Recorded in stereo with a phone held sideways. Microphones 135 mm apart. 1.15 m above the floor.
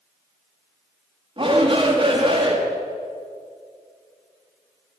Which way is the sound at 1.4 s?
40° right (ahead or behind).